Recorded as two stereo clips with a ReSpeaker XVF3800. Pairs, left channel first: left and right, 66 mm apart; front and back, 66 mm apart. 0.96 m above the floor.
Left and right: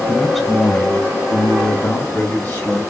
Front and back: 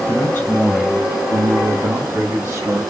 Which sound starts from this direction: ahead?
A man speaking, at 0.1 s.